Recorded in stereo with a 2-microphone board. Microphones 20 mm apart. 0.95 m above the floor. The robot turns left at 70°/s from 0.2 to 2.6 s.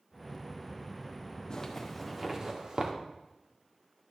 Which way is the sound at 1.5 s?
35° left (ahead or behind).